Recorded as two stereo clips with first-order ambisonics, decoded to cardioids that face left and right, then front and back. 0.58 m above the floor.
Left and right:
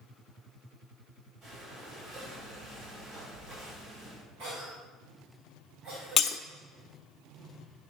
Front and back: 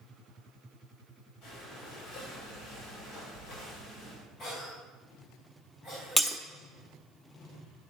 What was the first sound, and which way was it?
Breathing, 40° right.